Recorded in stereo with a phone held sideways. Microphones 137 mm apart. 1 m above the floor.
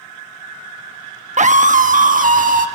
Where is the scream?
60° right (ahead or behind), 1.0 m; by 2.7 s 85° right, 1.7 m.